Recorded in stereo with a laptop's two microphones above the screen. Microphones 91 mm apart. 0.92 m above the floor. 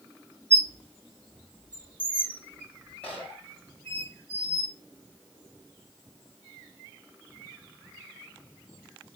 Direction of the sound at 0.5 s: 15° left (ahead or behind).